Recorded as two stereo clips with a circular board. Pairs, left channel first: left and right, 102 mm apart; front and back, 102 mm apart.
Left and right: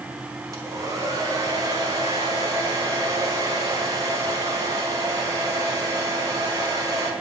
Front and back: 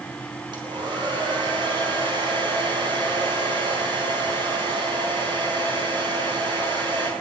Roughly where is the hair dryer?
Behind right.